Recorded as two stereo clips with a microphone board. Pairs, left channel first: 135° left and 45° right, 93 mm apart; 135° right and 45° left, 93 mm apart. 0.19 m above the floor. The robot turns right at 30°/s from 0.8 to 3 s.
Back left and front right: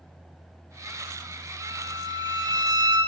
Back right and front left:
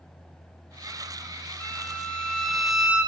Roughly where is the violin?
Right.